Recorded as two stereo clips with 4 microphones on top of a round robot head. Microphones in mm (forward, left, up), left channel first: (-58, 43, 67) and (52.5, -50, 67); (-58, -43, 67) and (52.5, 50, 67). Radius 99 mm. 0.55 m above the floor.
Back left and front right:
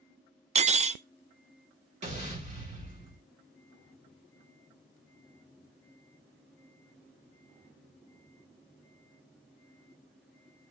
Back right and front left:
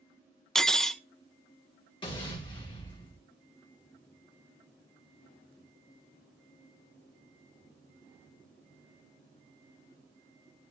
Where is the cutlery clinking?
55° right, 0.5 m.